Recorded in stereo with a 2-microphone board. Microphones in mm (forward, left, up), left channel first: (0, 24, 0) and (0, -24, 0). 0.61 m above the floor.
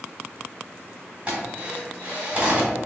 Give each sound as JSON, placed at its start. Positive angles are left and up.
{"t": 1.3, "sound": "a drill", "side_deg": -20, "distance_m": 2.0}